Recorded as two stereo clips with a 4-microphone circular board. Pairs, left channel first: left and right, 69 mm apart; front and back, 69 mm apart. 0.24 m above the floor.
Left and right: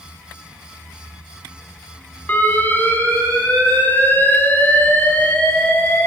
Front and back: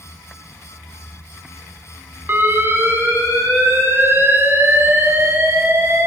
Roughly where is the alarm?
Behind left.